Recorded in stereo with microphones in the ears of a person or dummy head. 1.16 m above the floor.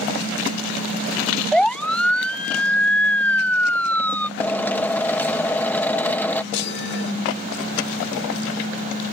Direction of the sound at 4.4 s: 5° left (ahead or behind).